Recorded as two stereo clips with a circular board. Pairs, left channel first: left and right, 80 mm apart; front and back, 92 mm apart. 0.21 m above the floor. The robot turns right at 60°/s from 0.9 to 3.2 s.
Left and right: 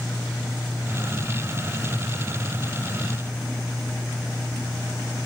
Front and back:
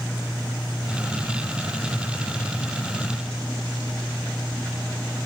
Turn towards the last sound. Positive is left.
No sound to turn to.